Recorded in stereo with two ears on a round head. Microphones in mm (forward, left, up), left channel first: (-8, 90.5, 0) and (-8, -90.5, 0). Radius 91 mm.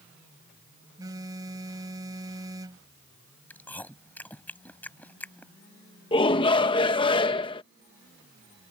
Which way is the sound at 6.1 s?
25° left (ahead or behind).